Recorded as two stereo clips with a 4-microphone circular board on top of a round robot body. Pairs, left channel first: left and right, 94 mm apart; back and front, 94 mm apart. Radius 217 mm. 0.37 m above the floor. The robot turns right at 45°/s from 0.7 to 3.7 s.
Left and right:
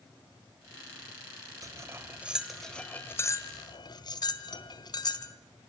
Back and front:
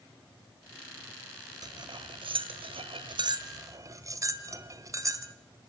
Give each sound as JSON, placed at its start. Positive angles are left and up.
{"t": 1.6, "sound": "cutlery clinking", "azimuth_deg": -40, "distance_m": 1.6}